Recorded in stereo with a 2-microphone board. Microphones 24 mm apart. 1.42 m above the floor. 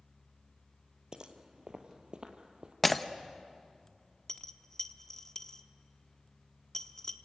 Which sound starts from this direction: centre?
Breaking glass, at 2.8 s.